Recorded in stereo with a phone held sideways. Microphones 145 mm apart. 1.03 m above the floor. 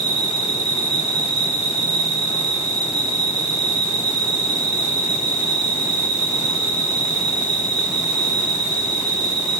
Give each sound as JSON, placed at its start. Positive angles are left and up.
{"t": 0.0, "sound": "an insect", "side_deg": -40, "distance_m": 2.5}